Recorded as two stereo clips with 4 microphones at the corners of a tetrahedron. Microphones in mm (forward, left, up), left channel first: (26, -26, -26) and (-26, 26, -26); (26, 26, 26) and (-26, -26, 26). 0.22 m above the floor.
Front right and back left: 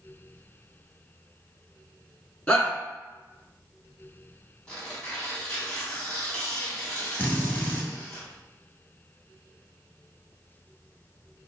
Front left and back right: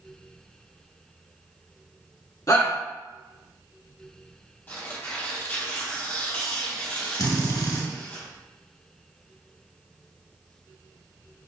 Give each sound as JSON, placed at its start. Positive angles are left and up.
{"t": 2.5, "sound": "a shout", "azimuth_deg": 25, "distance_m": 1.6}
{"t": 4.7, "sound": "tearing paper", "azimuth_deg": 20, "distance_m": 1.8}
{"t": 7.2, "sound": "a drill", "azimuth_deg": 20, "distance_m": 1.3}